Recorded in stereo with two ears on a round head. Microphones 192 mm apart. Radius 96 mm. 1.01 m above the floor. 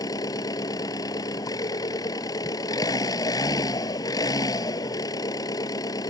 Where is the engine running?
20° left (ahead or behind).